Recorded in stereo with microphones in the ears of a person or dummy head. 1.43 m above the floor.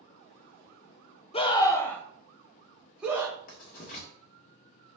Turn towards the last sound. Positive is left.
turn(degrees=50)  # may be behind; listen again after turning